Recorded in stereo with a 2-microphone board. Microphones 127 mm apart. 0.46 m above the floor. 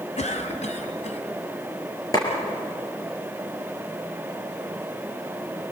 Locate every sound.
0.2 s a cough: 65° left (ahead or behind), 3 m
2.1 s a clap: 30° left (ahead or behind), 6 m